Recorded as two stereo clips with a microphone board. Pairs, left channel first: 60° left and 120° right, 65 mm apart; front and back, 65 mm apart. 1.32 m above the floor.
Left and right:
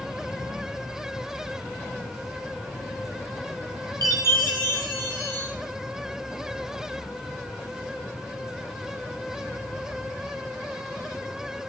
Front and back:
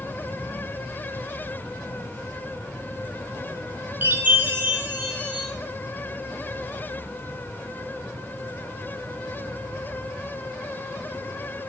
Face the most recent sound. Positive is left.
turn(degrees=-120)